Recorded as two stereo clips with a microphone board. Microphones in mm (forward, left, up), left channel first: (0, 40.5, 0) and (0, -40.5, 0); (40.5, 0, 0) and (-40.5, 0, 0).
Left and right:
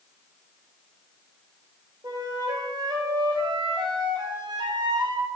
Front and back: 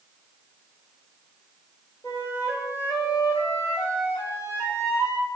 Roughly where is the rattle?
I don't hear a rattle.